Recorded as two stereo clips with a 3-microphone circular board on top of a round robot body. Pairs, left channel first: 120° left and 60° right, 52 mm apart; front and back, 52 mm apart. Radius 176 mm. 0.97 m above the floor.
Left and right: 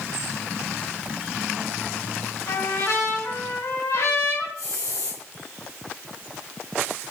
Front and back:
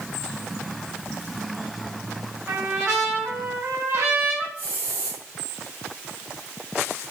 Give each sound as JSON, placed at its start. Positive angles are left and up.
{"t": 2.5, "sound": "a trumpet", "azimuth_deg": 135, "distance_m": 7.0}
{"t": 4.6, "sound": "a hiss", "azimuth_deg": 120, "distance_m": 3.5}